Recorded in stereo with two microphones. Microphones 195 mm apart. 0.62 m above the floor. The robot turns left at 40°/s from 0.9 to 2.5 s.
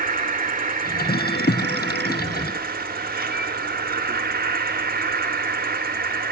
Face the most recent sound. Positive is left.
turn(degrees=-120)